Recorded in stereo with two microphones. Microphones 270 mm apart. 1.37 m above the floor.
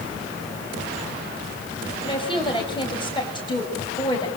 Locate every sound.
2.0 s a woman speaking: 20° left (ahead or behind), 6.5 m